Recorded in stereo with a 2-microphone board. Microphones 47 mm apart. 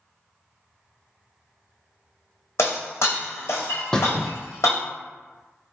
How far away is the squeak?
About 0.6 m.